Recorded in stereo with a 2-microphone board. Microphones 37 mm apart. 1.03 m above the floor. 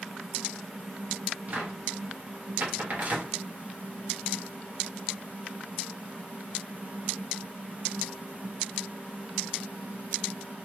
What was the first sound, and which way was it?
A cupboard door, 45° right (ahead or behind).